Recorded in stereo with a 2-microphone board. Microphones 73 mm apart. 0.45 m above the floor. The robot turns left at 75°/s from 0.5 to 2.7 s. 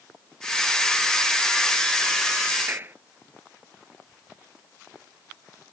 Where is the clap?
30° right (ahead or behind).